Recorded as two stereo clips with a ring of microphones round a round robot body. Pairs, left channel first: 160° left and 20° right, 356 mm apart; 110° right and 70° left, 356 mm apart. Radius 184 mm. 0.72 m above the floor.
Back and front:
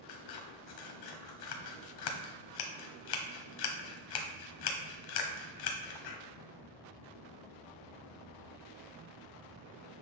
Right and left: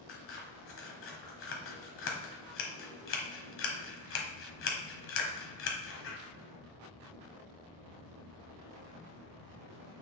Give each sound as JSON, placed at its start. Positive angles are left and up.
{"t": 0.1, "sound": "scissors", "azimuth_deg": -170, "distance_m": 1.2}